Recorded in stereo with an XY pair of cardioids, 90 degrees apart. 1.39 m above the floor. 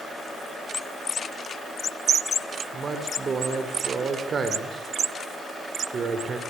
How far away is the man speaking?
About 4.5 m.